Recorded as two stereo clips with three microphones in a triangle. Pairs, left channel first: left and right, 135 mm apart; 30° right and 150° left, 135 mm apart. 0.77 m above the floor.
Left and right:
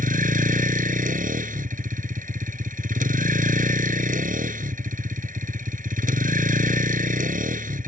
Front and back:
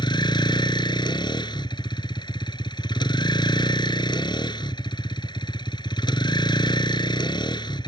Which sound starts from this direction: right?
A vehicle, at 0.0 s.